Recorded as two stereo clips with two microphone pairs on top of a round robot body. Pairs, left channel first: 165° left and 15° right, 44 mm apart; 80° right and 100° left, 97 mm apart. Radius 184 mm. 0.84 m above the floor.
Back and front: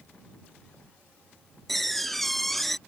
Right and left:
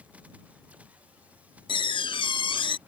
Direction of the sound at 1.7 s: 110° right.